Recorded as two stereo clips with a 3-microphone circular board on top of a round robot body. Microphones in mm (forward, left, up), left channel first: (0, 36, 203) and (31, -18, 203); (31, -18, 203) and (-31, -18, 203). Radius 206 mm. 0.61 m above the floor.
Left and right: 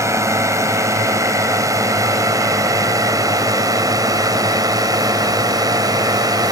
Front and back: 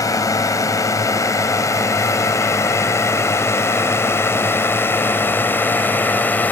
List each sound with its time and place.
0.0 s a drone: 25° right; by 6.5 s 60° right